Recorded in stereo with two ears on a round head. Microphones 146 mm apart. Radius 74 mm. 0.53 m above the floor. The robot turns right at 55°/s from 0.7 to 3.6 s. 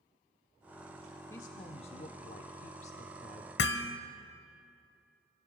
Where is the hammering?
85° left, 1.1 m.